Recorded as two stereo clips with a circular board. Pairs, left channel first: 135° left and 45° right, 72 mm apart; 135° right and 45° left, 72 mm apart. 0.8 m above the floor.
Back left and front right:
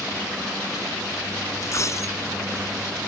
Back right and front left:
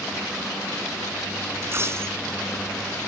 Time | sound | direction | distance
1.6 | a dropped coin | 95° left | ?